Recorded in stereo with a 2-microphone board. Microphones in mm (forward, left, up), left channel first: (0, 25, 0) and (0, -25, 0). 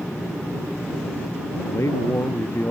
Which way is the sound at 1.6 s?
70° left (ahead or behind).